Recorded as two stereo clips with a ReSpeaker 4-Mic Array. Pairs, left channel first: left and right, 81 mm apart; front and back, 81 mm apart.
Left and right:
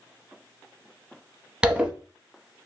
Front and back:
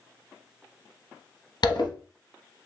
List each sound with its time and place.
1.6 s a zipper: 15° right, 0.7 m